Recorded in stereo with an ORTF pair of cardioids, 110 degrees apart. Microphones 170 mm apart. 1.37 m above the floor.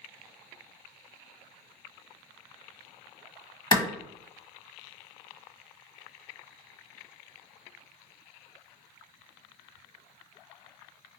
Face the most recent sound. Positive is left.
turn(degrees=30)